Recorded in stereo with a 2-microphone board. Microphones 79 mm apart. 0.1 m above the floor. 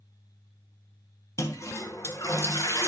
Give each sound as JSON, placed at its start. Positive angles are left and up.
{"t": 1.4, "sound": "a toilet flushing", "side_deg": 40, "distance_m": 0.8}